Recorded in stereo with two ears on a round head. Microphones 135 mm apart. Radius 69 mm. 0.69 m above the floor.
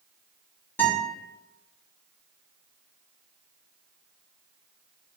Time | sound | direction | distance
0.8 | a guitar | 15° left (ahead or behind) | 2 m